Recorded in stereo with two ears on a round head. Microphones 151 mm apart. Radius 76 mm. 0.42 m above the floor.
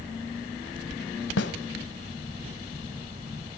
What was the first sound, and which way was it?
A snare drum, 70° left (ahead or behind).